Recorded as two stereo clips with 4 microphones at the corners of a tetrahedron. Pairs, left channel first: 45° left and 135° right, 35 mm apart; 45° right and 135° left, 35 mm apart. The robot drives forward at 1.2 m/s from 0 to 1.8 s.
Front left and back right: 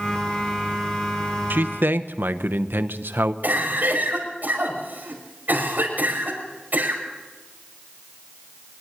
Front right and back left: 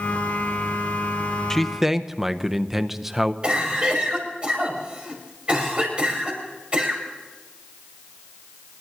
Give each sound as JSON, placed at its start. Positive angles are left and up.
{"t": 1.5, "sound": "a man speaking", "azimuth_deg": -120, "distance_m": 0.6}
{"t": 3.4, "sound": "a cough", "azimuth_deg": -165, "distance_m": 5.5}